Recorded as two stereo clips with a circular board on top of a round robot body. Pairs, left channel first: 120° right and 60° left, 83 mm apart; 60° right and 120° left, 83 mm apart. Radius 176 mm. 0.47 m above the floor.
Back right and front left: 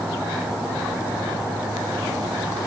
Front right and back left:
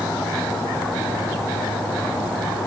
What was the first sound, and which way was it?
Only background noise.